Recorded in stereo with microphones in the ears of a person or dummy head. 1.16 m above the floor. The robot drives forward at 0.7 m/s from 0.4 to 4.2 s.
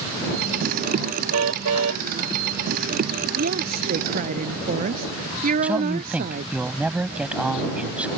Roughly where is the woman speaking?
Right.